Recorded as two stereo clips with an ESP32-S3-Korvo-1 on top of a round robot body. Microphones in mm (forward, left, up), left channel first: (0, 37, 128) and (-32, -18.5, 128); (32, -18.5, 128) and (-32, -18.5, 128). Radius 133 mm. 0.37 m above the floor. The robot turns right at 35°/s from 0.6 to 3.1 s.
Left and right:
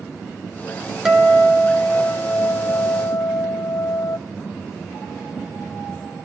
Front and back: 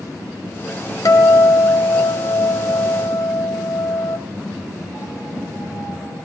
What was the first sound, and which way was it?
A guitar, 35° right.